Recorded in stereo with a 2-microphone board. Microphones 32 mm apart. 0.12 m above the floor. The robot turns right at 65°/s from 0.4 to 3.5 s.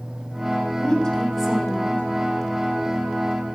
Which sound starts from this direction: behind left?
A woman speaking, at 0.8 s.